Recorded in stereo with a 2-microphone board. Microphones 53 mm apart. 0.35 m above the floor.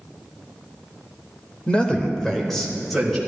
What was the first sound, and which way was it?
A man speaking, 20° left (ahead or behind).